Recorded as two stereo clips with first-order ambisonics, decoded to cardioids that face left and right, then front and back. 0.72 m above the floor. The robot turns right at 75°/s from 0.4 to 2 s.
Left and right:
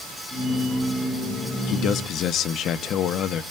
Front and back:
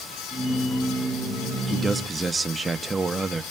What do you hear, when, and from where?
1.7 s a man speaking: 85° left, 0.6 m; by 3.4 s 110° left, 0.6 m